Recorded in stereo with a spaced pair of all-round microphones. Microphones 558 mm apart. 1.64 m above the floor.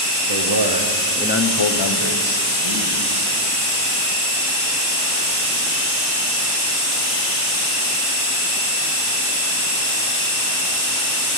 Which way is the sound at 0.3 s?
60° right (ahead or behind).